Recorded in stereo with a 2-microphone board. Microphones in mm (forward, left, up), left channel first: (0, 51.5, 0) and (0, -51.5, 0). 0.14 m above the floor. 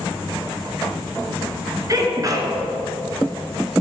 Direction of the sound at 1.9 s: 35° right (ahead or behind).